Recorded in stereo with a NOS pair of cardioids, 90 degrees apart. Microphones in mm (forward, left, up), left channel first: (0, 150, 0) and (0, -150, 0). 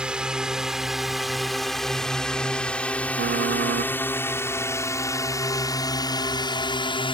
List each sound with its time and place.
0.0 s a drone: 5° right; by 7.1 s 15° left
3.2 s typing on a keyboard: 40° right